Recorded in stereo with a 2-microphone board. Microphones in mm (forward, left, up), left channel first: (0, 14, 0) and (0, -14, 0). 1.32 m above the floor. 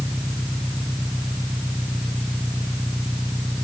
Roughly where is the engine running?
Right.